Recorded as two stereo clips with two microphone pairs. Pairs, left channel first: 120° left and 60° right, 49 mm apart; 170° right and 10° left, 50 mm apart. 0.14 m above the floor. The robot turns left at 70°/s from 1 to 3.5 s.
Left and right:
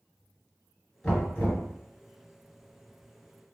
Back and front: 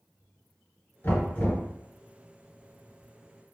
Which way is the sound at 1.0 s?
170° right.